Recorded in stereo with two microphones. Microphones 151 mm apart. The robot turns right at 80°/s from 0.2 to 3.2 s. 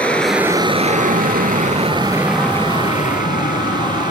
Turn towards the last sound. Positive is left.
turn(degrees=65)  # may be behind; listen again after turning